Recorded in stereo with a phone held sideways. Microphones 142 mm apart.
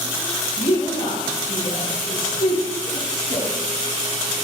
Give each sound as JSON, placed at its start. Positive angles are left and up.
{"t": 0.6, "sound": "a woman speaking", "side_deg": 80, "distance_m": 4.5}